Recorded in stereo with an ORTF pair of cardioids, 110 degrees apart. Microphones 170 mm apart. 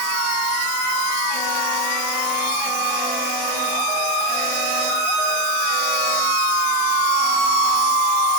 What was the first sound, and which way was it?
Only background noise.